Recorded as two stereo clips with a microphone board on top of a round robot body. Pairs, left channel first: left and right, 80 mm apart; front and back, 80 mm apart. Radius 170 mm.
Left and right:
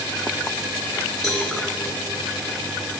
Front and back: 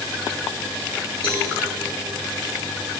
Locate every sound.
1.2 s a cowbell: 5° left, 4.5 m